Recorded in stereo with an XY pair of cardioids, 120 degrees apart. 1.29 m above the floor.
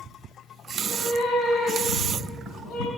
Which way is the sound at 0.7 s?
65° left.